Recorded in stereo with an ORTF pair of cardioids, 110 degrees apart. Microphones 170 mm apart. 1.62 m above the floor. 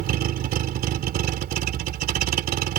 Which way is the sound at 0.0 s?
65° right.